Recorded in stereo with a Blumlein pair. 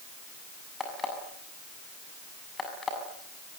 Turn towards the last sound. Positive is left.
turn(degrees=15)